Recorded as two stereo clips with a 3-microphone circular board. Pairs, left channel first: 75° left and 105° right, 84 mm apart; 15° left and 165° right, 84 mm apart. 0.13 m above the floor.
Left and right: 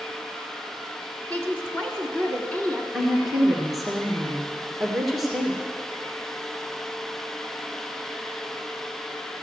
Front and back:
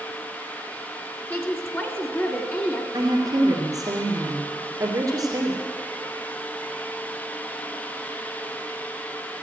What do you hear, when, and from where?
1.3 s a woman speaking: 25° left, 1.5 m
2.9 s a woman speaking: 160° left, 2 m